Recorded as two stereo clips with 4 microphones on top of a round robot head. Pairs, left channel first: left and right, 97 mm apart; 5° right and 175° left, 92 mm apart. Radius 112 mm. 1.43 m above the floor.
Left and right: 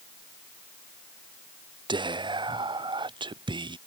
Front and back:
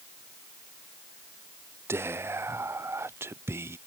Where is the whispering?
125° right.